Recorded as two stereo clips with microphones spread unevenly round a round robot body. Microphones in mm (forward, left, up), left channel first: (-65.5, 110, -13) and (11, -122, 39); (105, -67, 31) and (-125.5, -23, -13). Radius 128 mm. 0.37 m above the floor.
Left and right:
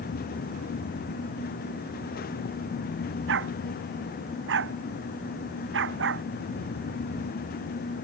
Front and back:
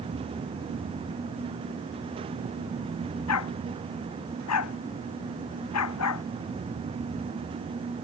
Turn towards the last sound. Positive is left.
turn(degrees=-25)